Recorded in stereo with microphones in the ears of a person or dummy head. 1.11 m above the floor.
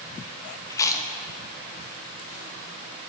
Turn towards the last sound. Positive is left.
turn(degrees=20)  # may be behind; listen again after turning